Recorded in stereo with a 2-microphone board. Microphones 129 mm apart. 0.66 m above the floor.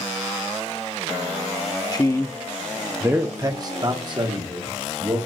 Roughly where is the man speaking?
Left.